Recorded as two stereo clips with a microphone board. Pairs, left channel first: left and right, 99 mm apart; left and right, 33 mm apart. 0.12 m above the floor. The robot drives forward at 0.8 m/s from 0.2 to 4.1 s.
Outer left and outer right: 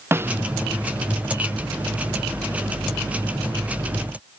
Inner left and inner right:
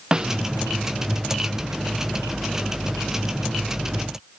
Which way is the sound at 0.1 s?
25° right (ahead or behind).